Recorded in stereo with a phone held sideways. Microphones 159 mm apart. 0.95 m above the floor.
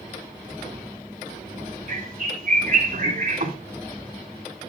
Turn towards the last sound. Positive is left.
turn(degrees=-60)  # may be behind; listen again after turning